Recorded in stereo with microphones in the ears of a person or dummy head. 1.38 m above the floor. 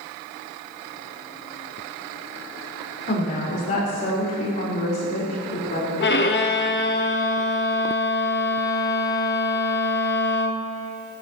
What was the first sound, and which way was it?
A woman speaking, 40° left (ahead or behind).